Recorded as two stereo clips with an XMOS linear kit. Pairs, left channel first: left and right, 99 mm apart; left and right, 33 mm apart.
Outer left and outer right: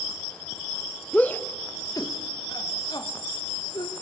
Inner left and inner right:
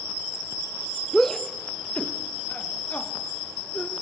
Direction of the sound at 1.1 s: 10° left (ahead or behind).